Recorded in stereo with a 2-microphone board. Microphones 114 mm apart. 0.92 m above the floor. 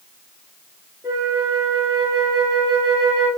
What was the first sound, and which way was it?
A flute, 25° right (ahead or behind).